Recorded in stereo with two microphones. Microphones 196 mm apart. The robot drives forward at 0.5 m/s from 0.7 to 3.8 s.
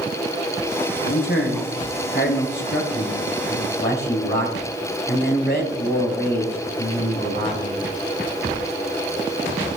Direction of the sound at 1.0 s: 70° left (ahead or behind).